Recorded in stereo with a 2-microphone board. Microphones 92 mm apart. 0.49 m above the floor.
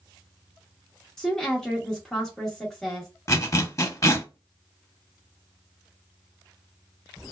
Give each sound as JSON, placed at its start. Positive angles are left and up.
{"t": 1.2, "sound": "a woman speaking", "side_deg": 5, "distance_m": 0.8}
{"t": 3.3, "sound": "a zipper", "side_deg": 35, "distance_m": 0.6}